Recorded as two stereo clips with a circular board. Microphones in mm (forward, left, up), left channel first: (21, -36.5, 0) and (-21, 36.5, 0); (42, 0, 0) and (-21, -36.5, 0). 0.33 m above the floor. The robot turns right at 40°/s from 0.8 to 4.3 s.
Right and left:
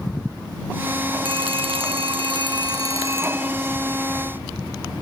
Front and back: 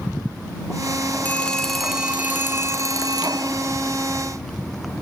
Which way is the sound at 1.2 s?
100° left.